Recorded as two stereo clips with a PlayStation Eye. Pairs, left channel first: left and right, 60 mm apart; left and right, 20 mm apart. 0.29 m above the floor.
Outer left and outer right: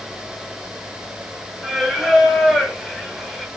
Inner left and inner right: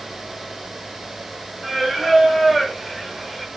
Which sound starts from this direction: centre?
Singing, at 1.6 s.